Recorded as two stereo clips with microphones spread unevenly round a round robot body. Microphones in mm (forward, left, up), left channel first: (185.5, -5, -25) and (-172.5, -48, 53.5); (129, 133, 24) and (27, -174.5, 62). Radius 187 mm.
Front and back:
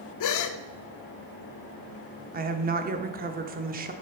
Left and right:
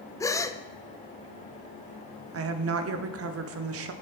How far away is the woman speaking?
About 0.8 m.